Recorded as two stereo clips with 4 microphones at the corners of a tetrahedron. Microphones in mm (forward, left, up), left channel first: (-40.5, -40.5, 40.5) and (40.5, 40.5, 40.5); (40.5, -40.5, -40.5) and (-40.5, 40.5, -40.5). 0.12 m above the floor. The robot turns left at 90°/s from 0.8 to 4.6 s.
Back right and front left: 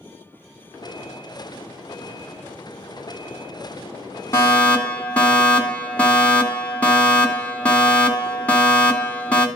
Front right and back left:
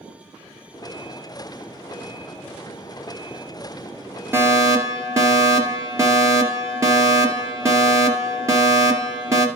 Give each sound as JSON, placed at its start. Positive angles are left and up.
{"t": 4.3, "sound": "a fire alarm", "azimuth_deg": 180, "distance_m": 2.5}